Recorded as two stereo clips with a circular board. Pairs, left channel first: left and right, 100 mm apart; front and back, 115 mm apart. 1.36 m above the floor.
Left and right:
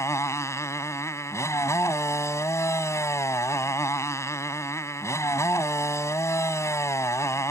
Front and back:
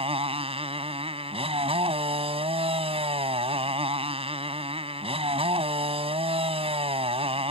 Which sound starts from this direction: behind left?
A motorcycle, at 0.0 s.